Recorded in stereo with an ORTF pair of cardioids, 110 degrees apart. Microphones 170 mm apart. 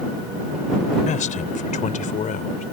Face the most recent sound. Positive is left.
turn(degrees=50)